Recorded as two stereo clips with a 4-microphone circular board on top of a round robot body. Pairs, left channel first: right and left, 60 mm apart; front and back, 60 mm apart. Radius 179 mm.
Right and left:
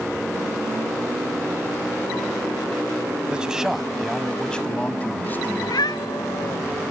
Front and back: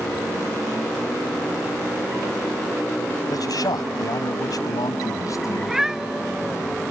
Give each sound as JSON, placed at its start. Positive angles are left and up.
{"t": 3.3, "sound": "a man speaking", "azimuth_deg": 15}
{"t": 5.6, "sound": "a cat meowing", "azimuth_deg": -95}